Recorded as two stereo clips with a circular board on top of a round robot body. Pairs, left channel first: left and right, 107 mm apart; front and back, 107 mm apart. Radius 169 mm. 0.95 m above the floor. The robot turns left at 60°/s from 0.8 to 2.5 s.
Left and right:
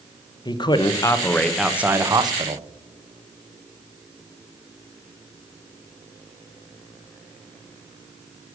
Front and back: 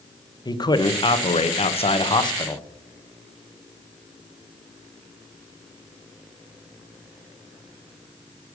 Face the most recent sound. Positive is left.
turn(degrees=-55)